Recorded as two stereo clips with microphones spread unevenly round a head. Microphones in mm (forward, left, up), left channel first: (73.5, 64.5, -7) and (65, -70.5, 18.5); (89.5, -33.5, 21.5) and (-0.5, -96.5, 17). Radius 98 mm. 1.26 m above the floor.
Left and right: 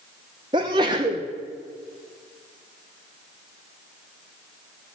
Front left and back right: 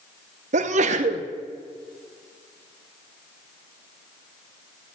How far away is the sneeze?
About 0.6 m.